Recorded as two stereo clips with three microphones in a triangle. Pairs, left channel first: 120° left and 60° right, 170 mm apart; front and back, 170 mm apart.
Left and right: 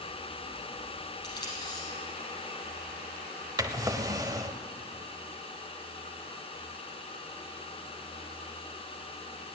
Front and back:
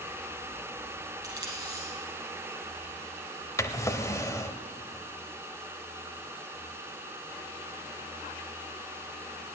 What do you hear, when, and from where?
1.2 s tape being pulled: 110° left, 5 m
3.6 s a drawer: 35° right, 0.7 m